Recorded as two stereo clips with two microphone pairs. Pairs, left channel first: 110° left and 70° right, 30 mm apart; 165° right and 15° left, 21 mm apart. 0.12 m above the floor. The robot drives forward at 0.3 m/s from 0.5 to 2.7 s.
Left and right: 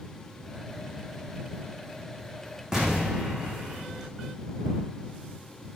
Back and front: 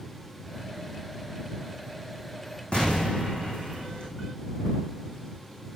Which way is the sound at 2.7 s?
140° right.